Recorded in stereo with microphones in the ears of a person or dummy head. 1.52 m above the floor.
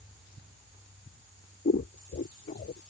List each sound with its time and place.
1.6 s scissors: 35° left (ahead or behind)